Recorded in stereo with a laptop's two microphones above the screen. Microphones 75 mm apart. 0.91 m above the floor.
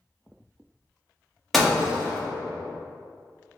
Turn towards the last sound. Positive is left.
turn(degrees=0)  # may be behind; listen again after turning